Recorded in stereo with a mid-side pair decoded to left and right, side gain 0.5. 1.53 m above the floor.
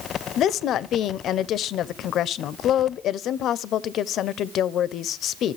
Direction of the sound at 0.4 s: 65° left.